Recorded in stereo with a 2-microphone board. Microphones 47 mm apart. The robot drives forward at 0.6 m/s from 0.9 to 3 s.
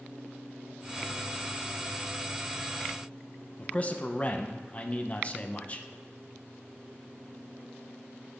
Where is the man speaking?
30° left (ahead or behind), 0.6 m.